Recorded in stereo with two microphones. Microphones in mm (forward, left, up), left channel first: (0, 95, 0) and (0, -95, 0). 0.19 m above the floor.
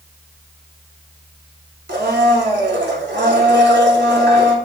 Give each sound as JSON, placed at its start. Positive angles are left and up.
{"t": 1.9, "sound": "a blender", "side_deg": -65, "distance_m": 0.9}